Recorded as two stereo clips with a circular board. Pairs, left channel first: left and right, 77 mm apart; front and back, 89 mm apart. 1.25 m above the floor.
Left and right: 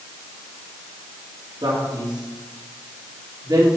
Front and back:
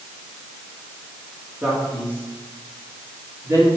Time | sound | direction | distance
1.6 | a man speaking | 110° right | 3.5 m